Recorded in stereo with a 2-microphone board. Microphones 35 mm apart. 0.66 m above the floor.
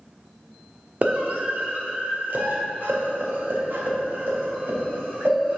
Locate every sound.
1.0 s a scream: 45° right (ahead or behind), 1.2 m; by 5.6 s 70° right (ahead or behind), 3.5 m